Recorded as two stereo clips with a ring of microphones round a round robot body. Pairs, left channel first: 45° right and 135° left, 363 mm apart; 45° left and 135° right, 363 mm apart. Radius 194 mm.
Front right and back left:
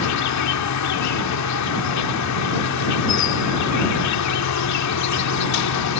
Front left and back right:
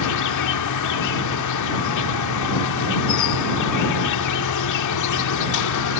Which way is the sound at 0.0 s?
Straight ahead.